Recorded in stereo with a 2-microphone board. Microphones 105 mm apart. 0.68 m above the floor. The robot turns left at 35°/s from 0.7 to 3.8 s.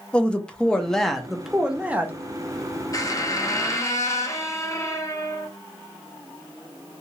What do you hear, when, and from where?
0.1 s a man speaking: 15° left, 0.6 m; by 2.2 s 35° right, 0.6 m
2.9 s a squeak: 95° left, 0.6 m; by 5.5 s 65° left, 0.6 m